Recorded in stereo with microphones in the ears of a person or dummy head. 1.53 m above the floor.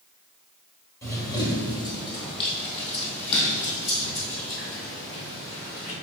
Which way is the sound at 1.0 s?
15° left (ahead or behind).